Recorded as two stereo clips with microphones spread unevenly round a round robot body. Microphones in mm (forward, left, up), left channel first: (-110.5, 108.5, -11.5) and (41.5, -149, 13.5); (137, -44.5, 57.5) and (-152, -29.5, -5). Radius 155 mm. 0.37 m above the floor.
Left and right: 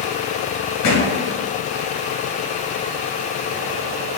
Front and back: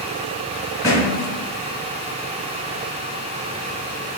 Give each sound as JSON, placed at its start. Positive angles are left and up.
{"t": 0.8, "sound": "a thud", "azimuth_deg": 80, "distance_m": 1.2}